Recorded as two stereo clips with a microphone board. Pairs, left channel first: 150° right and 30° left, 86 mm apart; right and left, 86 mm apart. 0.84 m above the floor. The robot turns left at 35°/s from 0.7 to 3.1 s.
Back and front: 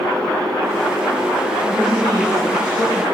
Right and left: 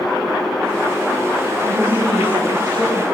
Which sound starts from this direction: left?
A woman speaking, at 1.6 s.